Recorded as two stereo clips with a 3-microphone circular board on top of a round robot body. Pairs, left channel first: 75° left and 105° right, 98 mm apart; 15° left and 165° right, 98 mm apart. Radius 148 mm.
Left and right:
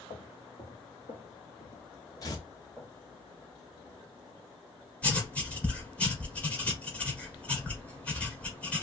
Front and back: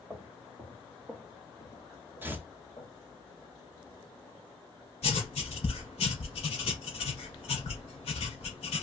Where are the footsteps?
130° left, 1.1 m; by 2.9 s 10° right, 0.9 m.